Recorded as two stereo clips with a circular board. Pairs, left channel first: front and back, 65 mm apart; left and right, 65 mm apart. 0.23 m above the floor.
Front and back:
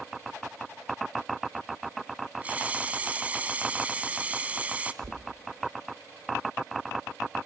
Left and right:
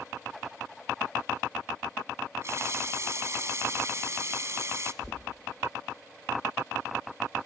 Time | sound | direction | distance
2.4 | a running tap | 115° right | 1.2 m
5.0 | knocking | 175° left | 3.5 m